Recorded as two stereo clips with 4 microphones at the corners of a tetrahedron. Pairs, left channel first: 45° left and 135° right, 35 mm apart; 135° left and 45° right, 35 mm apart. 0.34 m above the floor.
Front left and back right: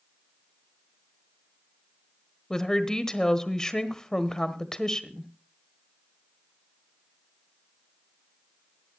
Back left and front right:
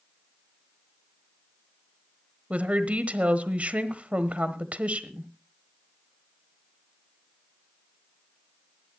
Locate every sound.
2.5 s a woman speaking: 20° right, 1.2 m